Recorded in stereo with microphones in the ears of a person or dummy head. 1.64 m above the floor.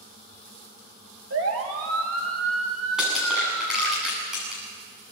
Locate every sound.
1.3 s a siren: 70° right (ahead or behind), 3 m; by 4.0 s 85° right, 4 m
3.0 s crushing: 5° right (ahead or behind), 8.5 m